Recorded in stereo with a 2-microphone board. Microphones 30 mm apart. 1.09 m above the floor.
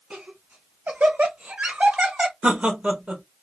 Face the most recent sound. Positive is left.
turn(degrees=-45)  # may be behind; listen again after turning